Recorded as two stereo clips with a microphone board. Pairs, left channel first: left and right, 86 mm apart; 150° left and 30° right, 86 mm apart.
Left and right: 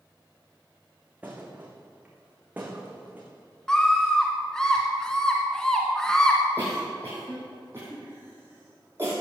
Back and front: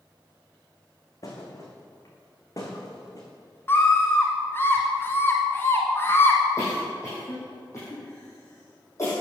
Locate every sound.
1.2 s a thud: 160° right, 3.5 m
3.7 s a scream: 165° left, 1.4 m
6.6 s a cough: 155° right, 5 m